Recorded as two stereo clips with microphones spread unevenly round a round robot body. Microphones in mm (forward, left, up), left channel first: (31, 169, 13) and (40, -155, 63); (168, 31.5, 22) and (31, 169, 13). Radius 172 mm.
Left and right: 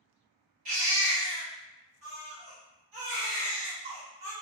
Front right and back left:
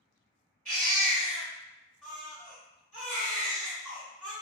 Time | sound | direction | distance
0.7 | a baby crying | 110° right | 1.0 m